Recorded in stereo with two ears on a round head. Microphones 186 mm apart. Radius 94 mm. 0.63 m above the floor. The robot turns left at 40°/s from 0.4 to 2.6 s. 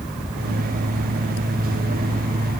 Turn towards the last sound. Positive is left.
No sound to turn to.